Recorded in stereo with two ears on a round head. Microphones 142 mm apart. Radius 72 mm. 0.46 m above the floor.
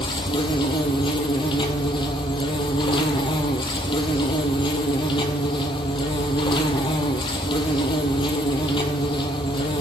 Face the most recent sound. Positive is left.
turn(degrees=30)  # may be behind; listen again after turning